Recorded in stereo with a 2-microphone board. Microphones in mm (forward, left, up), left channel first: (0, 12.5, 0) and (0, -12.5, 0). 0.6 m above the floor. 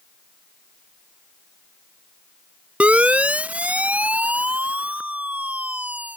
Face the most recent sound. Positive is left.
turn(degrees=-85)